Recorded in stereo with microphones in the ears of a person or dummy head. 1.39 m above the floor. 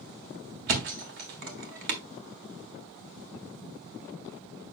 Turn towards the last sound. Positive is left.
turn(degrees=-50)  # may be behind; listen again after turning